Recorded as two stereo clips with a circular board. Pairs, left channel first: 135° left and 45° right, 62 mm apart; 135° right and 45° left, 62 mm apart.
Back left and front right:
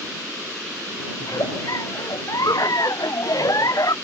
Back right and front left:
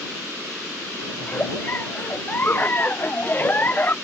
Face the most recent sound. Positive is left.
turn(degrees=165)